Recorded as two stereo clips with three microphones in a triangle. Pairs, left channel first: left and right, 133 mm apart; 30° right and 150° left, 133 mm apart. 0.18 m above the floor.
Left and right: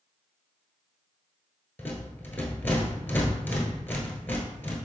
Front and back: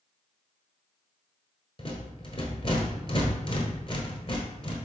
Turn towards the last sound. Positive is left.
turn(degrees=15)